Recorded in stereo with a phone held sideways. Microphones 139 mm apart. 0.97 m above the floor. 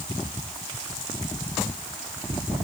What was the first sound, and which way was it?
Only background noise.